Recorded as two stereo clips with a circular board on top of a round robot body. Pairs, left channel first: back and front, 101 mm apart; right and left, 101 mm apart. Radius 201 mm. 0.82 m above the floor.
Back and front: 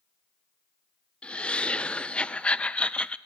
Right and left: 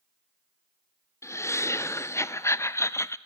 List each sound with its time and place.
1.2 s laughter: 115° right, 0.6 m